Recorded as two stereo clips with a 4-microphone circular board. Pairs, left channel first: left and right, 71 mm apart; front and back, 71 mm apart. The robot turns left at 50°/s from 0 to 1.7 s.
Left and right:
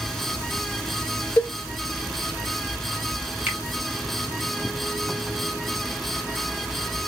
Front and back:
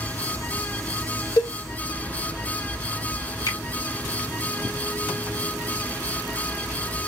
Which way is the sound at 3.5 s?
25° right.